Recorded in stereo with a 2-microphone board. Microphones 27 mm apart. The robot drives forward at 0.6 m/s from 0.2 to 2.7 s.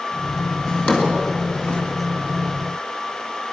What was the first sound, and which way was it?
A drawer, 40° left (ahead or behind).